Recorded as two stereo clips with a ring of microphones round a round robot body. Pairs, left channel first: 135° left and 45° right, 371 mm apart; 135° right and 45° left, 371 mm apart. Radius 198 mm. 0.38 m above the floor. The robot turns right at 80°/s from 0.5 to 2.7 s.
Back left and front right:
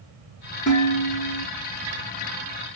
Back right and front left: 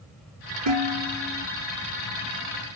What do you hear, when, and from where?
0.7 s dishes clattering: 55° left, 6 m; by 1.5 s 120° left, 6 m